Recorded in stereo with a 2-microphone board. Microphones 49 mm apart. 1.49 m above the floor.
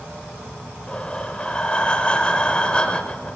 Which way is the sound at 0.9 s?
20° left (ahead or behind).